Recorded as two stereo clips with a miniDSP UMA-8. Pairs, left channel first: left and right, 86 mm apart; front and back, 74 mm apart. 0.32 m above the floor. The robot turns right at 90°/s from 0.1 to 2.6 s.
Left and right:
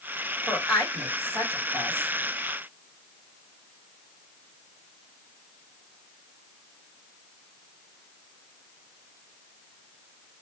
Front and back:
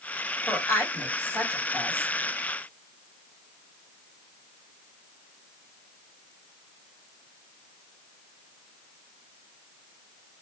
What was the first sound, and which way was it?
A woman speaking, 20° right.